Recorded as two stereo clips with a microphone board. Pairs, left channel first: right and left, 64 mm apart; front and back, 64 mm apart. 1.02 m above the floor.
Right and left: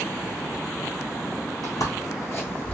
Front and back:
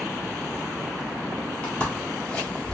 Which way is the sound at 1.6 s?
70° right.